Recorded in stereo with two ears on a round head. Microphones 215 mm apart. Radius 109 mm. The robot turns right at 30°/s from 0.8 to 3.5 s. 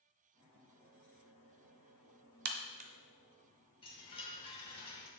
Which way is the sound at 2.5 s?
40° right (ahead or behind).